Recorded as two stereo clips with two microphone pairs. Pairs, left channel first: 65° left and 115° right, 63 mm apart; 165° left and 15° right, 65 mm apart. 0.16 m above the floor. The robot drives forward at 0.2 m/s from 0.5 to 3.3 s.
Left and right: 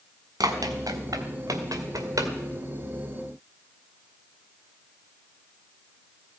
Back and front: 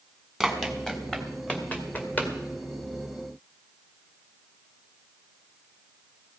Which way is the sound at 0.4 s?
110° right.